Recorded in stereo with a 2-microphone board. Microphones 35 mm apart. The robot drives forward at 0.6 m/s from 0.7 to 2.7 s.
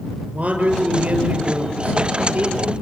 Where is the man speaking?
40° right (ahead or behind), 7.5 m; by 2.7 s 50° right (ahead or behind), 6.5 m.